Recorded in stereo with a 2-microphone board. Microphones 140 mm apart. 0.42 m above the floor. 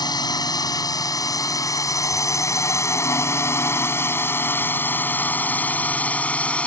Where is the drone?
30° left (ahead or behind); by 6.7 s 10° left (ahead or behind).